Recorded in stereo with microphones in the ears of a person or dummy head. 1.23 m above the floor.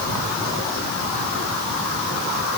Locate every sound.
Only background noise.